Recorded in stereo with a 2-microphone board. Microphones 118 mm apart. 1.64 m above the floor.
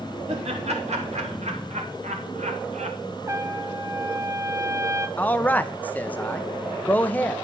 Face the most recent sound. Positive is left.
turn(degrees=15)  # may be behind; listen again after turning